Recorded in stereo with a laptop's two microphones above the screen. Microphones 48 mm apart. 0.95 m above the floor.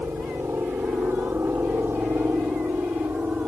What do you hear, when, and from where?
0.0 s a helicopter: 55° right (ahead or behind); by 3.5 s 45° right (ahead or behind)